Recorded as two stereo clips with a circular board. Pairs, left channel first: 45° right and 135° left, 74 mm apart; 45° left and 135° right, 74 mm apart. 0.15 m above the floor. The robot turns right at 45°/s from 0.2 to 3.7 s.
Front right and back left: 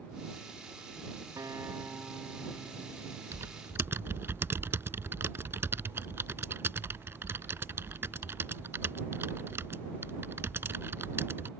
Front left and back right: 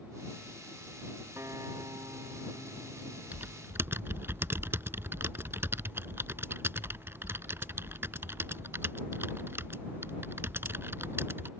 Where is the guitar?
170° left; by 3.2 s 105° right.